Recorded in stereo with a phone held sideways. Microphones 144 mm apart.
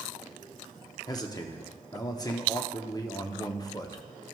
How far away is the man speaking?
About 0.7 m.